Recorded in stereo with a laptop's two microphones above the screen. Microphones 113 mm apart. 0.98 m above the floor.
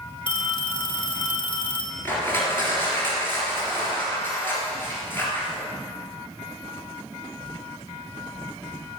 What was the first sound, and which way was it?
A phone ringing, 45° left (ahead or behind).